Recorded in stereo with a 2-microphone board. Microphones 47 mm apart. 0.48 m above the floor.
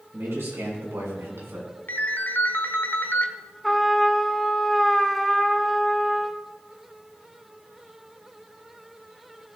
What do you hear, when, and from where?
0.1 s a man speaking: 60° right (ahead or behind), 5.5 m; by 1.8 s 75° right (ahead or behind), 4 m
1.9 s a ringtone: 50° left (ahead or behind), 0.9 m
3.6 s a trumpet: 5° left (ahead or behind), 0.7 m